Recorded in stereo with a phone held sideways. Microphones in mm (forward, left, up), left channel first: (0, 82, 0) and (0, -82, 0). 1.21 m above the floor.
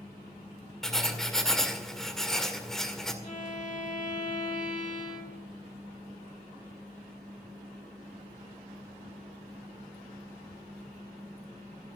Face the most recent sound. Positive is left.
turn(degrees=55)  # may be behind; listen again after turning